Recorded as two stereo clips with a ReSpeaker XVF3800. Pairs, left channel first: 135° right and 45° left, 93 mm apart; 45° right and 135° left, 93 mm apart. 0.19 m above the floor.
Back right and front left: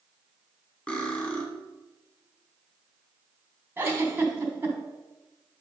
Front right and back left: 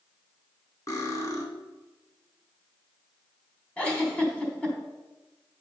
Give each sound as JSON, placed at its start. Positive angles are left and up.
{"t": 0.9, "sound": "cutlery clinking", "azimuth_deg": -65, "distance_m": 1.0}
{"t": 3.8, "sound": "a giggle", "azimuth_deg": 15, "distance_m": 1.2}